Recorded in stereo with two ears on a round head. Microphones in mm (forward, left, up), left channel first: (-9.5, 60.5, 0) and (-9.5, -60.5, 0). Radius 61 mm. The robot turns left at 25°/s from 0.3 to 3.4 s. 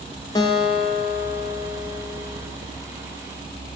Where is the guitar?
135° left, 0.6 m; by 2.4 s 85° left, 0.6 m.